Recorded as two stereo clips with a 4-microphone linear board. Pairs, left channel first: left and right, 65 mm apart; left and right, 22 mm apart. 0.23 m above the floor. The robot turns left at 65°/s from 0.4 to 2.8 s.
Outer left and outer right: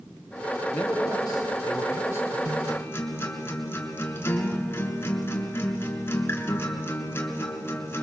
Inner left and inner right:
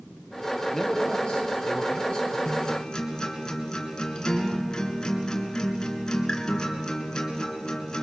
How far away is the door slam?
No door slam in this recording.